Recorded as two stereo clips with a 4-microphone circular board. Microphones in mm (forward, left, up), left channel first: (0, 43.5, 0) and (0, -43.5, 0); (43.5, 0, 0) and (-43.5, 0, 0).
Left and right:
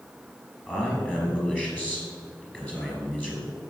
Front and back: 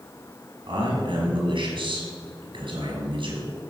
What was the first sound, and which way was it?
A man speaking, 165° left.